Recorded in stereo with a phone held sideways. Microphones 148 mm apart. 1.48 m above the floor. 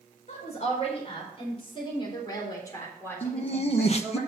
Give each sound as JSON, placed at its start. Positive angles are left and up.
{"t": 0.3, "sound": "a woman speaking", "side_deg": 50, "distance_m": 4.5}
{"t": 3.2, "sound": "laughter", "side_deg": 45, "distance_m": 1.0}